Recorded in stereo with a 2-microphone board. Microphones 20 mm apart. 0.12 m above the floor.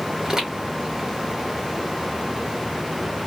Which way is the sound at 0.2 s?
35° right (ahead or behind).